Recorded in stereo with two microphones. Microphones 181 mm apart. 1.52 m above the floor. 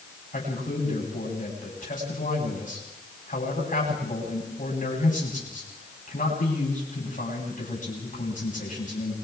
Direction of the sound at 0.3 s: 50° left (ahead or behind).